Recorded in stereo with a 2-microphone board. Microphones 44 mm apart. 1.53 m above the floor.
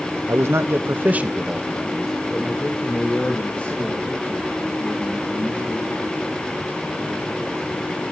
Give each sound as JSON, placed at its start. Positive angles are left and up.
{"t": 0.3, "sound": "a man speaking", "side_deg": -80, "distance_m": 0.9}